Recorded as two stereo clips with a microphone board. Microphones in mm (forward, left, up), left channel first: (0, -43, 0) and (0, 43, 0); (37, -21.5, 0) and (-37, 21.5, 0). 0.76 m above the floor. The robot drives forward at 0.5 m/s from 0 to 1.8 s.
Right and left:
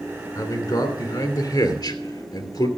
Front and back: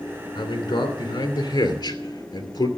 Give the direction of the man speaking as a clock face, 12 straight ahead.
2 o'clock.